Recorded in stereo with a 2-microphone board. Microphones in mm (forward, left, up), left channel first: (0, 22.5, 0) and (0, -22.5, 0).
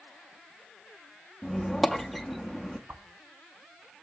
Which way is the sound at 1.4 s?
Centre (ahead or behind).